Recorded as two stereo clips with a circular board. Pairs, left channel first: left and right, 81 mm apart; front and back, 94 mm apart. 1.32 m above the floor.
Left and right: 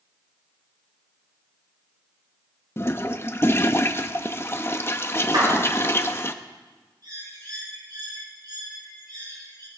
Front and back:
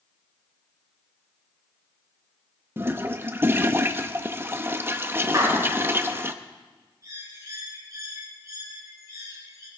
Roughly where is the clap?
Behind right.